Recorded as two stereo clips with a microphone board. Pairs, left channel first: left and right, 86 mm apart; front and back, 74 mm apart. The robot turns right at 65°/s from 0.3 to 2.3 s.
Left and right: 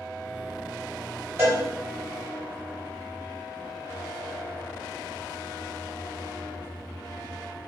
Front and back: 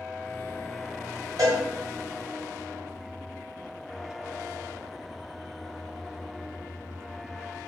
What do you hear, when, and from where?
1.4 s a cowbell: 155° right, 1.2 m; by 1.6 s 140° right, 1.2 m